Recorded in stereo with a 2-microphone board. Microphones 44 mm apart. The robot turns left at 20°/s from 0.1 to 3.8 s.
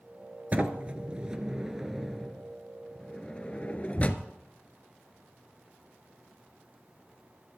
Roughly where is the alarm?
No alarm in this recording.